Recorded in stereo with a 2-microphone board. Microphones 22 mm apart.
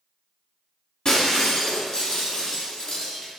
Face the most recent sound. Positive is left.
turn(degrees=30)  # may be behind; listen again after turning